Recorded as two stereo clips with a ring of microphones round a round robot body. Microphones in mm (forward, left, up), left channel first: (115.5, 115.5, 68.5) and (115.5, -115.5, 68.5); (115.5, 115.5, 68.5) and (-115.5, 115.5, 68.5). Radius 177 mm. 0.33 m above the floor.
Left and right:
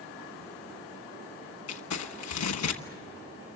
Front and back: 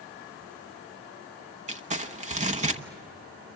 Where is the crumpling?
115° left, 1.1 m.